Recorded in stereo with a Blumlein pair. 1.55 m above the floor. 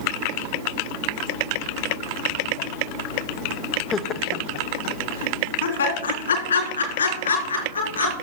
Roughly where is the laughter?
Ahead.